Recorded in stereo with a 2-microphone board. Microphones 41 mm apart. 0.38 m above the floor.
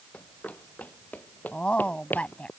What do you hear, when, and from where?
0.1 s running footsteps: 35° left (ahead or behind); by 2.5 s 50° left (ahead or behind)
1.5 s a woman speaking: 30° left (ahead or behind)